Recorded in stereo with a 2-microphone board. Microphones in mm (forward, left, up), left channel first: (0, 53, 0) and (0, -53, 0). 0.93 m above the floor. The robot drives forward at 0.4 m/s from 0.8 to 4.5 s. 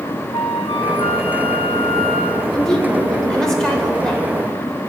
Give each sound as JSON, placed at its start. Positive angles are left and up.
{"t": 0.3, "sound": "a flute", "side_deg": 75, "distance_m": 0.9}
{"t": 2.5, "sound": "a woman speaking", "side_deg": 5, "distance_m": 3.5}